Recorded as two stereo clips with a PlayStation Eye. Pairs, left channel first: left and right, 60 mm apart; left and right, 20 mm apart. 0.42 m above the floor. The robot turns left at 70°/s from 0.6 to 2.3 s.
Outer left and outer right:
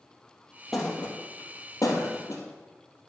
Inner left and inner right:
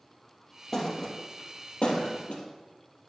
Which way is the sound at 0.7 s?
Centre (ahead or behind).